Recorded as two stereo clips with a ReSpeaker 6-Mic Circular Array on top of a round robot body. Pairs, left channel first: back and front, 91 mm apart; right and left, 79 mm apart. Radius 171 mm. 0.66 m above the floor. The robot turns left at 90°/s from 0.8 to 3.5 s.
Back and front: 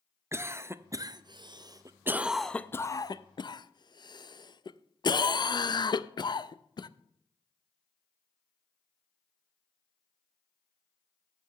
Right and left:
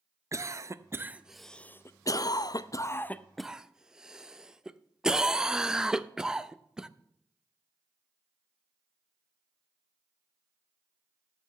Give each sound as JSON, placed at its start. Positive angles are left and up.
{"t": 0.3, "sound": "a cough", "azimuth_deg": 55, "distance_m": 0.8}